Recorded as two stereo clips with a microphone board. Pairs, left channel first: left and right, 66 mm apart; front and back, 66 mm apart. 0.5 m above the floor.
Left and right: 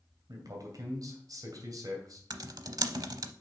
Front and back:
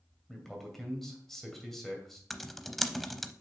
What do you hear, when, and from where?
0.3 s a man speaking: 85° right, 2.5 m
2.3 s typing on a keyboard: 85° right, 0.6 m